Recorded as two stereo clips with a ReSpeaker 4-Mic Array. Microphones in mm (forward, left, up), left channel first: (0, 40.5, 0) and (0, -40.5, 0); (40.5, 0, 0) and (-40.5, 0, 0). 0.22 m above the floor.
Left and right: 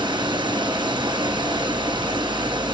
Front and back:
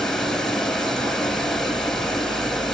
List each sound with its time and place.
0.0 s running water: 85° right, 1.4 m